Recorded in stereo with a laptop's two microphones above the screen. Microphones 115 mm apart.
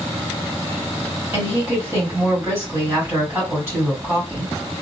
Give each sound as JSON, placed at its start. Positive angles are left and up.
{"t": 1.3, "sound": "a woman speaking", "side_deg": -20, "distance_m": 1.9}